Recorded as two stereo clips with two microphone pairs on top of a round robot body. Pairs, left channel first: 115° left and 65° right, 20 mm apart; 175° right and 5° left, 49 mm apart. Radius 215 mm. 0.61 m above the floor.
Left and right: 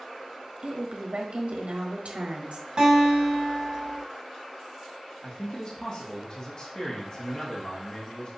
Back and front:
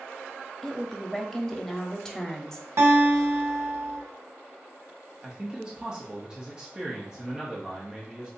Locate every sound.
0.6 s a woman speaking: 90° right, 1.1 m
2.8 s a guitar: 10° right, 1.0 m
5.2 s a man speaking: 70° left, 1.2 m